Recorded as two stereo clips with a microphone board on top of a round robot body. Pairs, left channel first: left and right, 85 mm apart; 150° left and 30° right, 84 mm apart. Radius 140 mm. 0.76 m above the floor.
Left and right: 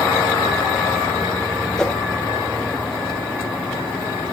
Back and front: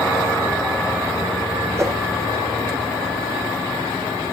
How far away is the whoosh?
About 1.2 m.